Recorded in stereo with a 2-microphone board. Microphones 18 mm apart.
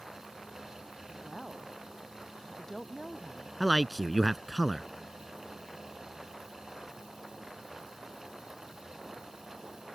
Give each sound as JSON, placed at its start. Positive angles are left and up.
{"t": 1.1, "sound": "a woman speaking", "side_deg": 30}
{"t": 3.6, "sound": "a man speaking", "side_deg": -5}